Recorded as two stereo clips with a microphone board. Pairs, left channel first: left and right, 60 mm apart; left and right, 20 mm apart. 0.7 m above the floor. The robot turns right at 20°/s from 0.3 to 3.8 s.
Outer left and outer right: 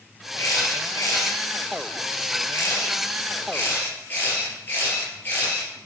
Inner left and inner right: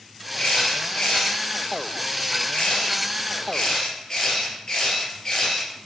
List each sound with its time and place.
0.4 s a camera shutter: 75° left (ahead or behind), 5 m; by 5.7 s 35° left (ahead or behind), 5 m